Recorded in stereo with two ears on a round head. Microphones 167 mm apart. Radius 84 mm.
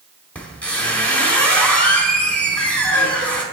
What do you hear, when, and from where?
0.3 s a squeak: 10° left (ahead or behind), 1.1 m